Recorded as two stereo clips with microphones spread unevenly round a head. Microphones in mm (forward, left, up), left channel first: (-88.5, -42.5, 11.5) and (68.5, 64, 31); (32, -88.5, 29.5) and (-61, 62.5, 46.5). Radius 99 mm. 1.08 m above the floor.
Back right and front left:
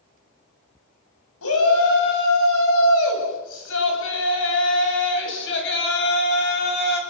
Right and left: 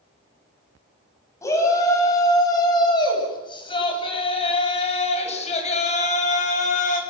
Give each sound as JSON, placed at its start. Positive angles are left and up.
{"t": 1.4, "sound": "a shout", "azimuth_deg": -135, "distance_m": 9.0}